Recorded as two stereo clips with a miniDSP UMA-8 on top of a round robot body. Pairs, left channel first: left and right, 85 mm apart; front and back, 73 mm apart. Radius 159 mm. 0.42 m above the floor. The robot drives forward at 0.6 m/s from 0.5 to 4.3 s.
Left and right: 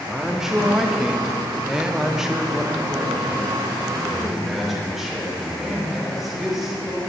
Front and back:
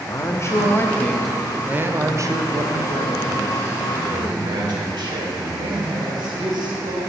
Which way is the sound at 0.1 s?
10° right.